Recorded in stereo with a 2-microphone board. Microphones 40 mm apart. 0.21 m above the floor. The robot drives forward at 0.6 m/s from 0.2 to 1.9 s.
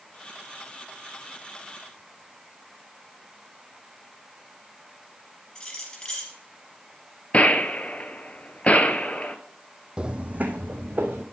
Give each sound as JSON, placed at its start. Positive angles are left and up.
{"t": 5.5, "sound": "keys jangling", "side_deg": 25, "distance_m": 3.0}
{"t": 7.3, "sound": "a gunshot", "side_deg": 35, "distance_m": 0.7}
{"t": 10.0, "sound": "footsteps", "side_deg": -20, "distance_m": 0.5}